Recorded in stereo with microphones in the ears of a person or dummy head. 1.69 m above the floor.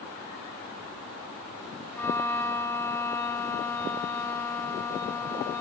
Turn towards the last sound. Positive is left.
turn(degrees=15)  # may be behind; listen again after turning